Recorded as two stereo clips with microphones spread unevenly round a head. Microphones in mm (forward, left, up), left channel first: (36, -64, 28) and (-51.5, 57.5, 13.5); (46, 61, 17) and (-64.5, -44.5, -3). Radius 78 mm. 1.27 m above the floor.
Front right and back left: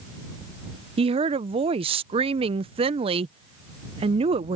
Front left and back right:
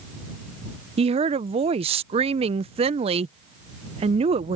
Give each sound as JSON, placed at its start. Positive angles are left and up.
{"t": 1.0, "sound": "a woman speaking", "azimuth_deg": 175}